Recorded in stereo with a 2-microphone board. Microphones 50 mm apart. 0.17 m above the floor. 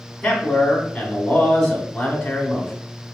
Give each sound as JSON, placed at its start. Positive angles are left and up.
{"t": 0.2, "sound": "a man speaking", "side_deg": 10, "distance_m": 1.0}